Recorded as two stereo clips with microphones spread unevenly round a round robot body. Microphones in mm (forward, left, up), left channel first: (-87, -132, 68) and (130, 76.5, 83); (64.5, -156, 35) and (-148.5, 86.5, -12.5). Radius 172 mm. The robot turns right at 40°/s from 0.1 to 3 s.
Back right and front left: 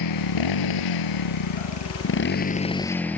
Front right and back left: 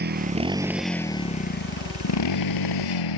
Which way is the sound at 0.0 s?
165° right.